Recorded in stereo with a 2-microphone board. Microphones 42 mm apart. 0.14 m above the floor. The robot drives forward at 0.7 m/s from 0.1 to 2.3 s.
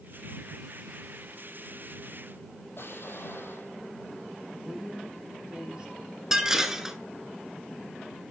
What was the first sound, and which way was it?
An explosion, 65° left (ahead or behind).